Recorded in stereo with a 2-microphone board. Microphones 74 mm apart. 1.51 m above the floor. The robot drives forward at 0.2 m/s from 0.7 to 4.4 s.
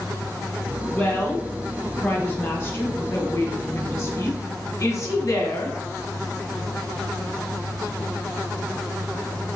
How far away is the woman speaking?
About 1.4 m.